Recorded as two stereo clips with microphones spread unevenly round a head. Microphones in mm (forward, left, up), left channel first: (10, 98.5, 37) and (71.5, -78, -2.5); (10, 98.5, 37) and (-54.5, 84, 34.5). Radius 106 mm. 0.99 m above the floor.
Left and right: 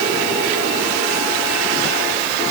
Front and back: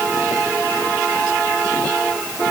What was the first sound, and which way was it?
Only background noise.